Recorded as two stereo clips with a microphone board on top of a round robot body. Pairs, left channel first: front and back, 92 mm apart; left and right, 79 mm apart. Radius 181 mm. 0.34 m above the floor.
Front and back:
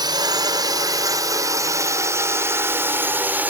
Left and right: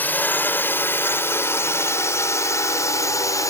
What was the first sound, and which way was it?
A drone, 150° left.